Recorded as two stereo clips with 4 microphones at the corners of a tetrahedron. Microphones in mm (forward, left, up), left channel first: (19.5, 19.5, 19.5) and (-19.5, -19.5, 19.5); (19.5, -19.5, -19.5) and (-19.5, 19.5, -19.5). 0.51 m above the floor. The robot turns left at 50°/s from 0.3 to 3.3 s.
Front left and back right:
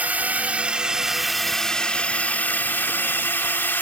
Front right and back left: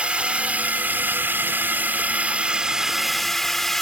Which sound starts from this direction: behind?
A drone, at 0.0 s.